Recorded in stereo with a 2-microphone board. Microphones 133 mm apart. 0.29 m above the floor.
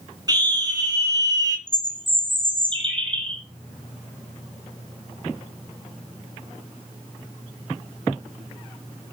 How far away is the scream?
About 3 m.